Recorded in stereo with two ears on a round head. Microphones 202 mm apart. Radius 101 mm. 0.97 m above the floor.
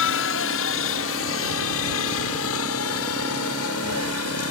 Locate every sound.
0.0 s a helicopter: 60° left (ahead or behind); by 4.5 s 70° left (ahead or behind)